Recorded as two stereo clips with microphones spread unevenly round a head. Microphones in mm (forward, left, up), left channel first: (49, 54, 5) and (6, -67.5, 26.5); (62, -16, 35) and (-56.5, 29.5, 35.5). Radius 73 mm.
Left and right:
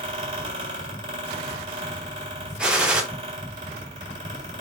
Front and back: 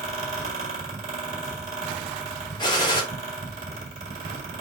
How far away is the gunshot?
About 0.8 m.